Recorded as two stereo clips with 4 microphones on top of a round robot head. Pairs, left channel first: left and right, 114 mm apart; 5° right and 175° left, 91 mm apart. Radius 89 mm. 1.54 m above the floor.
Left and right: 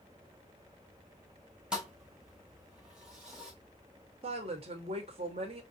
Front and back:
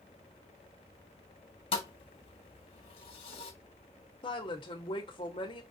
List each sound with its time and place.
1.7 s a thud: 5° right, 1.4 m
4.2 s a woman speaking: 45° right, 1.6 m